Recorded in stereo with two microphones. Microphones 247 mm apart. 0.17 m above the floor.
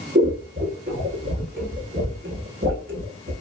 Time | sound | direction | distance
0.1 | scissors | 45° right (ahead or behind) | 0.7 m